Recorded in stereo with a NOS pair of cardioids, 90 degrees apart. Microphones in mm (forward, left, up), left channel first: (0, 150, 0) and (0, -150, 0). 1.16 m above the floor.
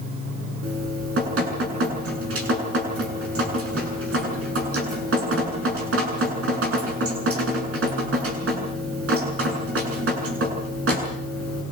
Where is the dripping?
50° right, 7 m.